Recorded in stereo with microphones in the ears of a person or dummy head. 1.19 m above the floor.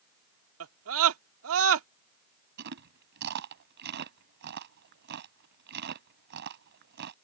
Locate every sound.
0.6 s a scream: 70° right (ahead or behind)
2.6 s chewing: 60° right (ahead or behind)